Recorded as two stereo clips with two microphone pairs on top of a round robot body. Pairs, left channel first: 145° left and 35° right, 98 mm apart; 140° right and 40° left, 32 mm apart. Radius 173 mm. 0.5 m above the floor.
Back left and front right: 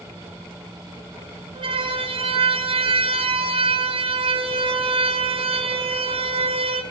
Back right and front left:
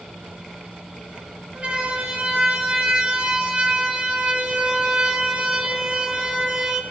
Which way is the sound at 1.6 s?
Straight ahead.